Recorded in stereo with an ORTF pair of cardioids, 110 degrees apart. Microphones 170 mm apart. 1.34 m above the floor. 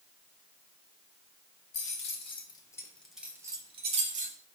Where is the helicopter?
No helicopter in this recording.